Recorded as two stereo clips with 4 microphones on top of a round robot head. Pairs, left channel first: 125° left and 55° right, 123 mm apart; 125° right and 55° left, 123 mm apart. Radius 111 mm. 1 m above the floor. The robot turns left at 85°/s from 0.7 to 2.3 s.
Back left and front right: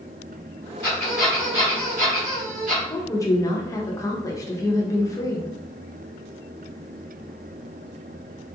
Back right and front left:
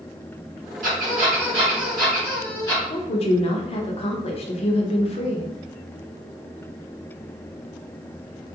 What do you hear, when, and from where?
0.8 s a squeak: 65° left, 1.9 m; by 2.8 s 60° right, 1.9 m
2.9 s a woman speaking: 165° right, 0.7 m